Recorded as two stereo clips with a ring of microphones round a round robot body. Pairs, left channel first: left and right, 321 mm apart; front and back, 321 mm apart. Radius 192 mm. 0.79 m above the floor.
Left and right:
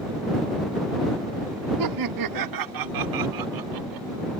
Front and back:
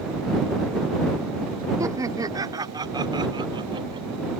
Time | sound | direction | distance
1.8 | laughter | 100° right | ?